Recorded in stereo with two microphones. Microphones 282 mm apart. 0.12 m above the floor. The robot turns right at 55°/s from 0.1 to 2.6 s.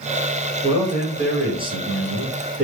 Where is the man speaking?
20° right (ahead or behind), 1.4 m; by 2.6 s 5° right (ahead or behind), 1.4 m.